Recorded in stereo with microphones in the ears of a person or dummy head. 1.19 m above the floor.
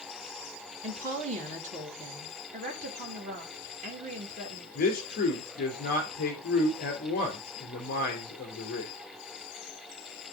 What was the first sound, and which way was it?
A woman speaking, 40° right (ahead or behind).